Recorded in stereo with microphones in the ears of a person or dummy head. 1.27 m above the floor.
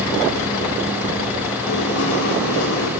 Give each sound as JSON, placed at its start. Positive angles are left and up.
{"t": 1.7, "sound": "writing", "side_deg": 85, "distance_m": 4.0}